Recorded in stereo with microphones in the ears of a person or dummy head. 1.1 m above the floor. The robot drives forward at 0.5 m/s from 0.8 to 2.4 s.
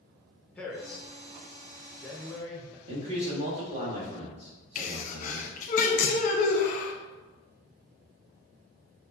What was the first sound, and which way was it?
A man speaking, 5° left (ahead or behind).